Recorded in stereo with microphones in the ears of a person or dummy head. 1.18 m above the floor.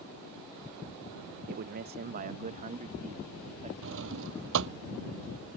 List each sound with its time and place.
1.5 s a man speaking: 50° right (ahead or behind); by 3.7 s 35° right (ahead or behind)
3.8 s a drawer: 65° right (ahead or behind)